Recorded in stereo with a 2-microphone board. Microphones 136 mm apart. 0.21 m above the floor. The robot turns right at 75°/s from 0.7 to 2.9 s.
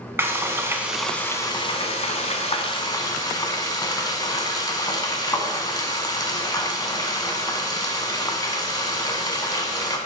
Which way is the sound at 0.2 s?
25° right.